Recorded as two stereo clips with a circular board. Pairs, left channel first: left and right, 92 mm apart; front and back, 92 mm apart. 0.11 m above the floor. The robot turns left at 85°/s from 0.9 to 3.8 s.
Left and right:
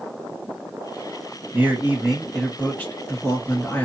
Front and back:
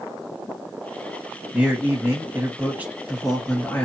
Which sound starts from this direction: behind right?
A man speaking, at 1.5 s.